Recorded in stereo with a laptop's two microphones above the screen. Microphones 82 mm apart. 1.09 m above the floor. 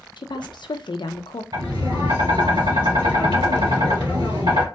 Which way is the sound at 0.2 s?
65° left (ahead or behind).